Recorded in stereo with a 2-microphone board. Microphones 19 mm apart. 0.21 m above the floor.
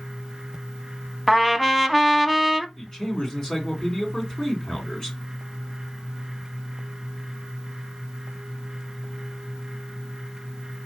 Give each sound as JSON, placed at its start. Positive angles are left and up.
{"t": 1.3, "sound": "a trumpet", "side_deg": 5, "distance_m": 0.6}
{"t": 2.8, "sound": "a man speaking", "side_deg": 35, "distance_m": 2.5}